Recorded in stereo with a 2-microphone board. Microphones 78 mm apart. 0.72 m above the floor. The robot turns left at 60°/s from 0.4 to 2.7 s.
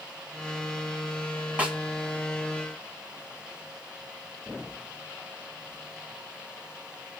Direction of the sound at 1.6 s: 15° right (ahead or behind).